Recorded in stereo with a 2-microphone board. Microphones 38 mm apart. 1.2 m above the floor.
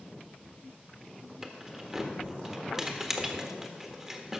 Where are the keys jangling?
10° right (ahead or behind), 1.3 m.